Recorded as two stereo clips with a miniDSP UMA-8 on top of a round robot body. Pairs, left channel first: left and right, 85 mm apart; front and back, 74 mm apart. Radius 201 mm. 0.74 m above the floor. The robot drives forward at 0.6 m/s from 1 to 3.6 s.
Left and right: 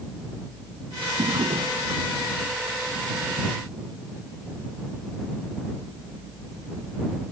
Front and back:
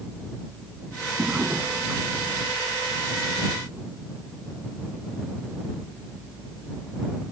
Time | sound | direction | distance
1.2 | a drawer | 110° right | ?